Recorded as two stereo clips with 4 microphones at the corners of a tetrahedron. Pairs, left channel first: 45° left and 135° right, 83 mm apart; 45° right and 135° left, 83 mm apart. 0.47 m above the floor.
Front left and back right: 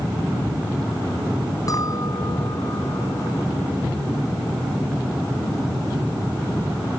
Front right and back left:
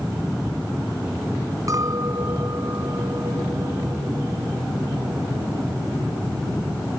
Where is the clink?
90° left.